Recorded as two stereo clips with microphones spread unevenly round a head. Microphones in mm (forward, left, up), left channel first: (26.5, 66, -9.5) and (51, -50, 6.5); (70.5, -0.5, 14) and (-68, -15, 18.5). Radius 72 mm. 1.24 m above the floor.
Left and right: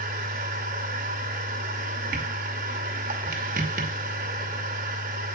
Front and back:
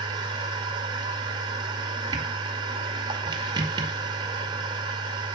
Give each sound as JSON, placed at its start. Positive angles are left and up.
{"t": 0.0, "sound": "a machine running", "azimuth_deg": -115, "distance_m": 2.0}